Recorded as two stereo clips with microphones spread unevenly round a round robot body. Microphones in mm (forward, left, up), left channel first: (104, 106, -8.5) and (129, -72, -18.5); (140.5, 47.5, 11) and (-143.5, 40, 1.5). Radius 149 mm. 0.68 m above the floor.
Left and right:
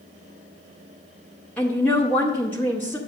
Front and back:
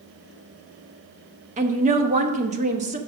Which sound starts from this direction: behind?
A woman speaking, at 1.6 s.